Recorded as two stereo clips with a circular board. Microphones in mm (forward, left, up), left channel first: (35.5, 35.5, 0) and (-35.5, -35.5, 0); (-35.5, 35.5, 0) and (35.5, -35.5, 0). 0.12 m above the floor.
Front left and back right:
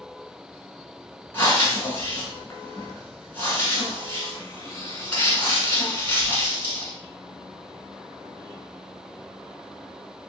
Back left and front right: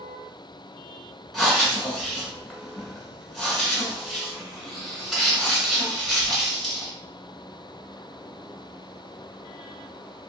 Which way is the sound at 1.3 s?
45° left.